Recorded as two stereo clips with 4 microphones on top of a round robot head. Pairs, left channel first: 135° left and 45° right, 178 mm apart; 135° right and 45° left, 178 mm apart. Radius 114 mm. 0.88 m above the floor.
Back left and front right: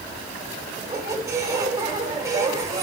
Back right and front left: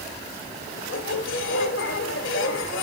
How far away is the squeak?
About 1.1 m.